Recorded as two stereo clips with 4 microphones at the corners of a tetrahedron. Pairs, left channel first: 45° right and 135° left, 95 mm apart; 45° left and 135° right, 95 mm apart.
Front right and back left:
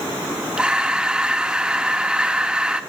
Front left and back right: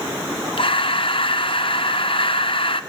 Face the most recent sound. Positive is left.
turn(degrees=55)